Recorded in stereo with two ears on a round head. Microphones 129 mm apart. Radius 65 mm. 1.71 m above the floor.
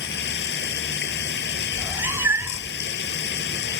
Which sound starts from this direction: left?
Running water, at 0.0 s.